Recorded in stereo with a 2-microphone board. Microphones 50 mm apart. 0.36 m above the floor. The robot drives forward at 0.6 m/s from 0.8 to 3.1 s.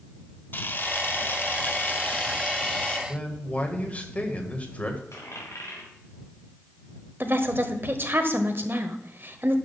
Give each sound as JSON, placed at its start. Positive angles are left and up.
{"t": 0.5, "sound": "a camera shutter", "side_deg": 40, "distance_m": 0.9}
{"t": 3.1, "sound": "a man speaking", "side_deg": 30, "distance_m": 1.8}
{"t": 5.1, "sound": "a dropped coin", "side_deg": 70, "distance_m": 3.5}
{"t": 7.2, "sound": "a woman speaking", "side_deg": -45, "distance_m": 1.3}